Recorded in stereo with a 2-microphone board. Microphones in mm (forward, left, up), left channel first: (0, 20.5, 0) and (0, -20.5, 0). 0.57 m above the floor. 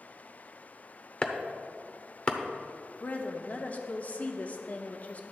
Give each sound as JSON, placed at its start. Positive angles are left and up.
{"t": 1.2, "sound": "chopping", "side_deg": 25, "distance_m": 0.8}
{"t": 3.0, "sound": "a woman speaking", "side_deg": 40, "distance_m": 0.8}